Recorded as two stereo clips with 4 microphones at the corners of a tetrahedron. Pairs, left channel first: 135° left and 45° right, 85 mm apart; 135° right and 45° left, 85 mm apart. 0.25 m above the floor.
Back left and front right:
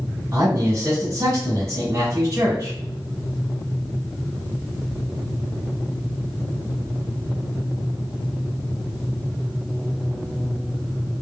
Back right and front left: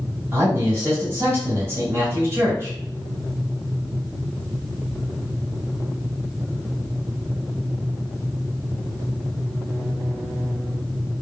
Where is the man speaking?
5° right, 1.7 m.